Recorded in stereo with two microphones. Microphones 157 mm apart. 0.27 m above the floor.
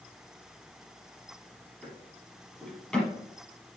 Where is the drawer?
5° left (ahead or behind), 4.5 m.